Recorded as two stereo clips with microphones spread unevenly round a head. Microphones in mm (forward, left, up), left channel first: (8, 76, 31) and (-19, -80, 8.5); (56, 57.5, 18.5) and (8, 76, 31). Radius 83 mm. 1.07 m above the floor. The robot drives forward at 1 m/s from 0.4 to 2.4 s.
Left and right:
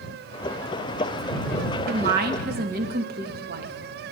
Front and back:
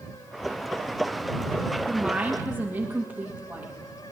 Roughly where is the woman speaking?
Right.